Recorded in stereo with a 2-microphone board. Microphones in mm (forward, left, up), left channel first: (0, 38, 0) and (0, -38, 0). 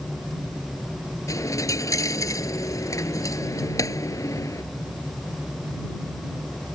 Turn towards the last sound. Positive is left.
turn(degrees=45)  # may be behind; listen again after turning